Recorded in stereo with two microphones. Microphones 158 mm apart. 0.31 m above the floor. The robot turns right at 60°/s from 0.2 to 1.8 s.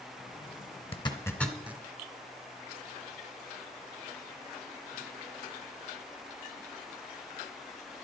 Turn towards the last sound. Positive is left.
turn(degrees=-15)  # may be behind; listen again after turning